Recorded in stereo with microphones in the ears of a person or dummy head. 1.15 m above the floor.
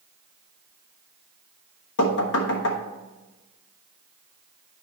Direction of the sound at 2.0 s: 60° left (ahead or behind).